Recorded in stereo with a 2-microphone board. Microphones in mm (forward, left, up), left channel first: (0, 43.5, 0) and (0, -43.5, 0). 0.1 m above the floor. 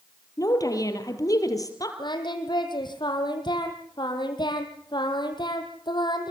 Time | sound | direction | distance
0.4 | a woman speaking | 40° left (ahead or behind) | 3 m
2.0 | singing | 60° left (ahead or behind) | 3.5 m